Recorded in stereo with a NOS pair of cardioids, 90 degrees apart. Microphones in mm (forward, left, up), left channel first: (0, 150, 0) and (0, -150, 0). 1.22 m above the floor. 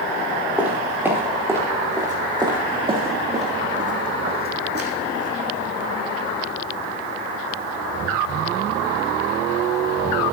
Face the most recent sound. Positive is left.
turn(degrees=-50)